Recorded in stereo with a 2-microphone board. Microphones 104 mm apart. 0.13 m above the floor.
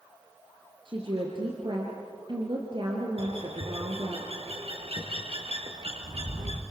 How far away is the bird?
About 3.5 m.